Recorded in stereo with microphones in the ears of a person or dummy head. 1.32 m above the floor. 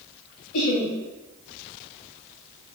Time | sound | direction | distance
0.5 | laughter | 85° left | 2.5 m